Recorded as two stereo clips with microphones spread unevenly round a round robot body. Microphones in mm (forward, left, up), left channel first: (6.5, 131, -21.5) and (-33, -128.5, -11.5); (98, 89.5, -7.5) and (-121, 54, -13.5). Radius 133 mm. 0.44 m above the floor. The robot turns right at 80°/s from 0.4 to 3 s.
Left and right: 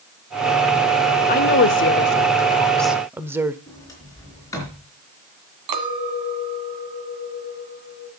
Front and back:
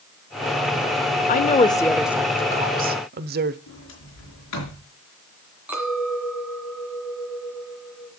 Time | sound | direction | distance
1.3 | a woman speaking | 45° left | 0.9 m
3.7 | a sliding door | straight ahead | 4.5 m
5.7 | a clink | 85° right | 2.0 m